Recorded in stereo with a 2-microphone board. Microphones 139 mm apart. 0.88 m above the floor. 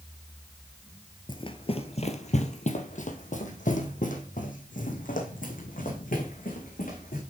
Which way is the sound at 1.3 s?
35° left (ahead or behind).